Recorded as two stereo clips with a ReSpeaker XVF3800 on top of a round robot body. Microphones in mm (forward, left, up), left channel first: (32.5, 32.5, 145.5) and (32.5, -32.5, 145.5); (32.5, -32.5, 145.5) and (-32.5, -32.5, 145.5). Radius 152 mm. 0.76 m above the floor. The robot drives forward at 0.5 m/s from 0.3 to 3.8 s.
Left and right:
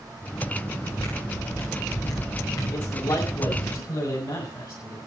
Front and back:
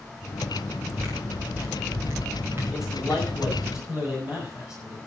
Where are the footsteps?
120° left, 8.5 m; by 3.7 s 130° left, 6.5 m.